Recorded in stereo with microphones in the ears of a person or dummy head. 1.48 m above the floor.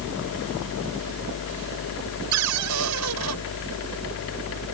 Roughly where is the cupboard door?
Right.